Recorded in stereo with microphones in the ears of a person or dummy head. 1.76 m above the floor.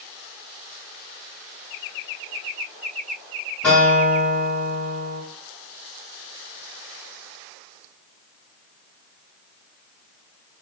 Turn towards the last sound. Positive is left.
turn(degrees=10)  # may be behind; listen again after turning